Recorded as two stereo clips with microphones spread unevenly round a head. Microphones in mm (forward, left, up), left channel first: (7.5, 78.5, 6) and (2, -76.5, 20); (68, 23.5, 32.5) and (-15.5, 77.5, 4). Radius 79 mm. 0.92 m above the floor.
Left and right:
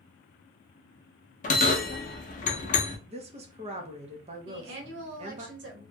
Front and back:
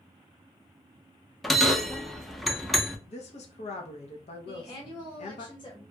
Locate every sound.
1.4 s a bell: 45° left, 0.5 m
3.1 s a woman speaking: 45° right, 0.8 m
4.5 s a woman speaking: 95° right, 1.0 m